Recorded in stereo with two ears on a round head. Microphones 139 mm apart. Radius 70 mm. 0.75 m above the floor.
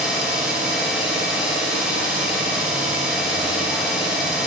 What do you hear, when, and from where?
0.0 s an engine running: 5° right (ahead or behind), 0.9 m